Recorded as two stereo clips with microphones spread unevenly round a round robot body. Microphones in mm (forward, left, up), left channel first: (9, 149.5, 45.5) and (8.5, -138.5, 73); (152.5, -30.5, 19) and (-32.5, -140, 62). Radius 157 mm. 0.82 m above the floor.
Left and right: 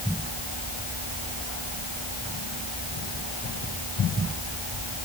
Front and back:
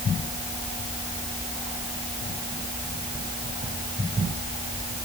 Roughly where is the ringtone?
No ringtone in this recording.